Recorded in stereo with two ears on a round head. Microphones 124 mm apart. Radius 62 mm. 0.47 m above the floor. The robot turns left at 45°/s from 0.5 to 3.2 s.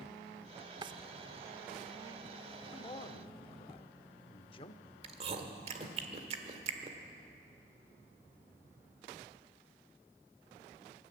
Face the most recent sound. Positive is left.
turn(degrees=-45)  # may be behind; listen again after turning